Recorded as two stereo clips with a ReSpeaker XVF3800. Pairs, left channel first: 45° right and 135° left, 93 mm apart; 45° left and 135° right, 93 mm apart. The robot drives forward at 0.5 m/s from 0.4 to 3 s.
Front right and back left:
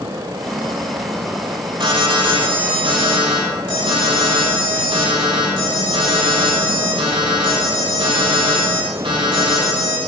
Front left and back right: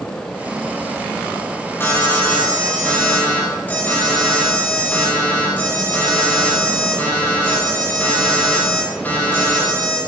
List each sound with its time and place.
1.8 s an alarm: 110° left, 5 m; by 10.0 s 115° left, 5.5 m